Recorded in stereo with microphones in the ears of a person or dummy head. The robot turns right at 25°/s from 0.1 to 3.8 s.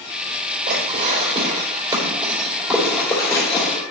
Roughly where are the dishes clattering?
Right.